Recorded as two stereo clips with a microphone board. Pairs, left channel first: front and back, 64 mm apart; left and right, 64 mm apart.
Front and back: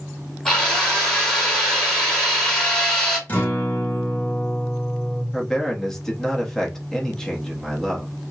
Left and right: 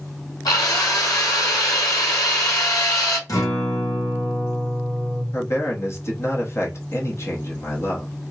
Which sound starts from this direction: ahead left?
A guitar, at 3.3 s.